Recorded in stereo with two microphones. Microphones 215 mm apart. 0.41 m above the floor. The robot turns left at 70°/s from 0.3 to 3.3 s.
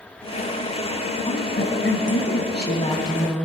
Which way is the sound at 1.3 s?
145° left.